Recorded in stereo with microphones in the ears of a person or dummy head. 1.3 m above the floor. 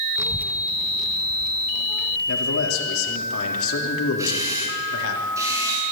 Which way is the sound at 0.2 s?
15° right (ahead or behind).